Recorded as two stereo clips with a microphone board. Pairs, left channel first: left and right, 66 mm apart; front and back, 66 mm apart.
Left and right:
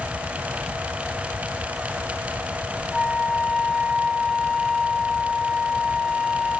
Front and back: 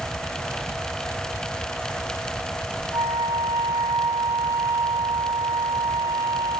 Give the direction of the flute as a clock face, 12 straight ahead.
6 o'clock.